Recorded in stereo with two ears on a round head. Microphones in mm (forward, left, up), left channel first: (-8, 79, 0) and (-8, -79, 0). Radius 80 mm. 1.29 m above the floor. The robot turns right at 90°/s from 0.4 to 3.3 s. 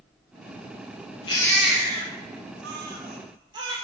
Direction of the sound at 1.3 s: 25° left (ahead or behind).